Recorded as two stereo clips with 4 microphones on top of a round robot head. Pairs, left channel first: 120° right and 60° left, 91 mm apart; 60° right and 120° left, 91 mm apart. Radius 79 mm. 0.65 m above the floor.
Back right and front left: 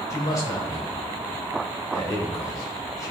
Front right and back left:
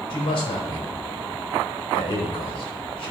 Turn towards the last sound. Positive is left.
turn(degrees=-70)